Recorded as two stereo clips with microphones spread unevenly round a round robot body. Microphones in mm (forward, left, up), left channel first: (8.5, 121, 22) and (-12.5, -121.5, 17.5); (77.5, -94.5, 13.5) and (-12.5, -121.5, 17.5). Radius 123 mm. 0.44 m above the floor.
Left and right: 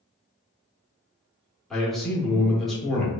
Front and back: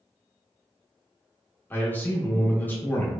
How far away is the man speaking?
About 0.8 m.